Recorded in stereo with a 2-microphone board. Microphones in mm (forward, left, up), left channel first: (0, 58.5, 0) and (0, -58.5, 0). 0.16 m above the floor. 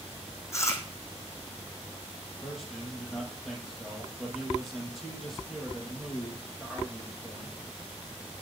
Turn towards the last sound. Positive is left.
turn(degrees=0)  # may be behind; listen again after turning